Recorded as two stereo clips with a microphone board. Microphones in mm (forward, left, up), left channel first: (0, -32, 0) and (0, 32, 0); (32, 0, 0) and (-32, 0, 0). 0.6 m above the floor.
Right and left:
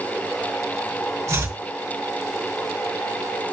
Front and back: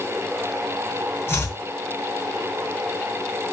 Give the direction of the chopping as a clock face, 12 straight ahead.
10 o'clock.